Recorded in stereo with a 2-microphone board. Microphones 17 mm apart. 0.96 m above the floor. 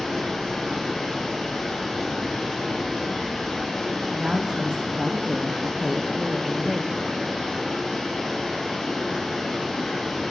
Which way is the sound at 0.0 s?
70° left (ahead or behind).